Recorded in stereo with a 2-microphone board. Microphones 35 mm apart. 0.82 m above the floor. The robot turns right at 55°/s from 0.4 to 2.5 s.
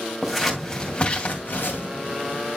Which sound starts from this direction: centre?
Scissors, at 0.2 s.